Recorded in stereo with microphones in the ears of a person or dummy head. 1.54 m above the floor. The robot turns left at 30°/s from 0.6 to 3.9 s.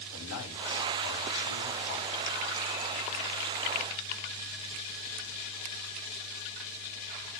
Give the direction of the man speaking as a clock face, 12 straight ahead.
9 o'clock.